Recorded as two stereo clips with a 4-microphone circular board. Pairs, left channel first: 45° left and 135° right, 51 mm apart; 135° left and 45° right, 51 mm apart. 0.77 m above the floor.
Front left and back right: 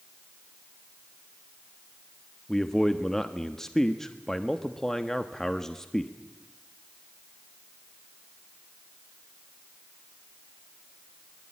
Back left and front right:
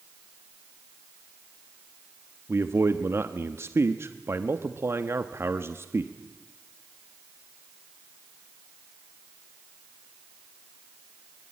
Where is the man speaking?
35° right, 1.2 m.